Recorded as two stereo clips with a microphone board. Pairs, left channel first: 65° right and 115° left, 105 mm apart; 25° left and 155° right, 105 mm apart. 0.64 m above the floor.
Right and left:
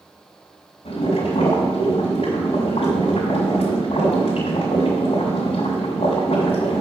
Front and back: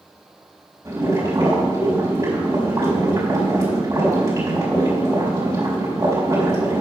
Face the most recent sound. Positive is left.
turn(degrees=-95)